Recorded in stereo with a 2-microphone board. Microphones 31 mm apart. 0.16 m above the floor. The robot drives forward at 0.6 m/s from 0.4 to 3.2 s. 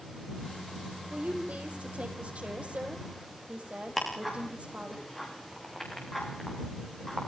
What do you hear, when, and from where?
1.1 s a woman speaking: 55° right (ahead or behind), 6 m; by 5.0 s 45° right (ahead or behind), 6.5 m
4.0 s ticking: 5° left (ahead or behind), 9 m